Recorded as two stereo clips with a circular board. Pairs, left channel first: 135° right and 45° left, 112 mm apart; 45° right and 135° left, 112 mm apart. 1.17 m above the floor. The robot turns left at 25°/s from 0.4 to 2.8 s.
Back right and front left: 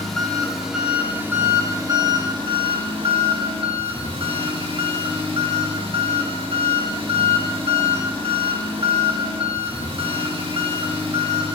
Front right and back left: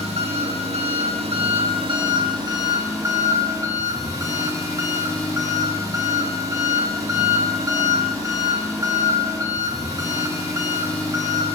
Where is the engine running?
135° left, 1.2 m; by 11.6 s 75° left, 1.2 m.